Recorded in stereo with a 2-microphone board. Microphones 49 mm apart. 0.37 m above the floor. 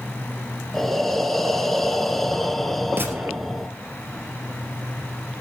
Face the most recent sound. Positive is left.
turn(degrees=-45)  # may be behind; listen again after turning